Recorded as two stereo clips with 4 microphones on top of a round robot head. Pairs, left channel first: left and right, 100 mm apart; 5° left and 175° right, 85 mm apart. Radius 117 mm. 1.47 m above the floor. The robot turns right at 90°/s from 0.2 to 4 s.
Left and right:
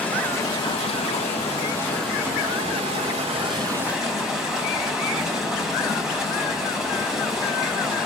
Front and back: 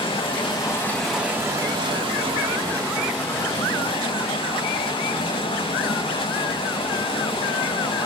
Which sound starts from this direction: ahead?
Running water, at 0.0 s.